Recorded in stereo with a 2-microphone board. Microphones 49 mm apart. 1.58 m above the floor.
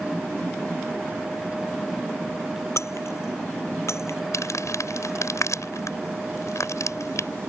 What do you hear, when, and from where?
2.8 s breaking glass: 65° left (ahead or behind)
4.3 s crumpling: 75° left (ahead or behind)